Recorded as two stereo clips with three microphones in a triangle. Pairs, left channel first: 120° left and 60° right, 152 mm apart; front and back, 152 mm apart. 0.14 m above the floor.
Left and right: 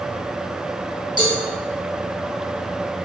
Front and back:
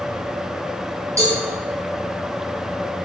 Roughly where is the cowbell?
Behind right.